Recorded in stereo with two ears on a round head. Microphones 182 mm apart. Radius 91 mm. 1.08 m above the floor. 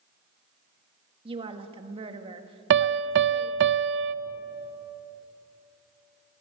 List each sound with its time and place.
1.2 s a woman speaking: 25° right (ahead or behind), 1.8 m
2.7 s a piano: 60° right (ahead or behind), 0.6 m